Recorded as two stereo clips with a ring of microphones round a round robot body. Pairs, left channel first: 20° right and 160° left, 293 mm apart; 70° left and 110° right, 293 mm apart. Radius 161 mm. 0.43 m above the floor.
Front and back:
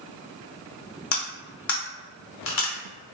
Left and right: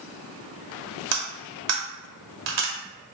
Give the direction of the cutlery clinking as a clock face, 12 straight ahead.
2 o'clock.